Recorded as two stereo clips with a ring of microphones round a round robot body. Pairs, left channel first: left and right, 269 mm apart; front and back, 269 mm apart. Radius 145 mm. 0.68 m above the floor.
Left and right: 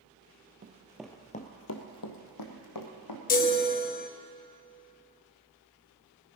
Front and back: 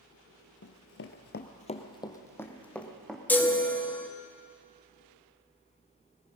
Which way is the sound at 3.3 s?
75° left.